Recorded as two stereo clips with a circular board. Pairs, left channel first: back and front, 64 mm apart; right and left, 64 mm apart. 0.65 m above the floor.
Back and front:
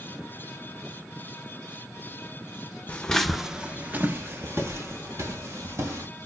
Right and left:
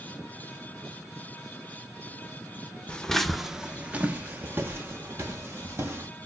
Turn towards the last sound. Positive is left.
turn(degrees=40)